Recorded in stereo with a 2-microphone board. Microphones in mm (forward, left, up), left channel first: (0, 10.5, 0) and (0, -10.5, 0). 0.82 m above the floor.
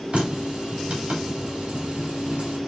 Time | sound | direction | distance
0.1 | a running tap | 85° right | 2.5 m